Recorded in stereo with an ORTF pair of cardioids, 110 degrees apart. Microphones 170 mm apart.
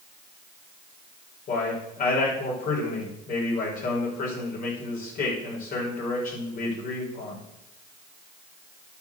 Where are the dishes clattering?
No dishes clattering in this recording.